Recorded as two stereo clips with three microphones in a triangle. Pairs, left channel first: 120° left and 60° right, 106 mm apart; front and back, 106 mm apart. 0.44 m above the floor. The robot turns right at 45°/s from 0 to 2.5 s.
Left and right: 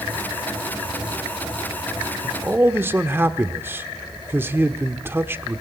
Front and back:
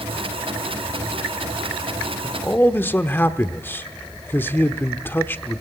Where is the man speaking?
45° right, 1.0 m; by 5.6 s 35° right, 1.0 m.